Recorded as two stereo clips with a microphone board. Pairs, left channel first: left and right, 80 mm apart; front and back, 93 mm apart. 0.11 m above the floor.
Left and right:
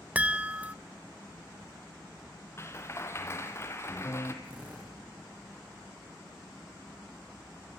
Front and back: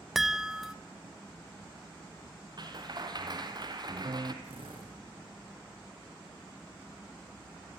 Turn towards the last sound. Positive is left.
turn(degrees=-165)